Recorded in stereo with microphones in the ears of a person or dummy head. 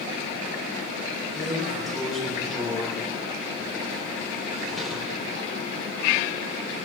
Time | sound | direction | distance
1.4 | a drawer | centre (ahead or behind) | 4 m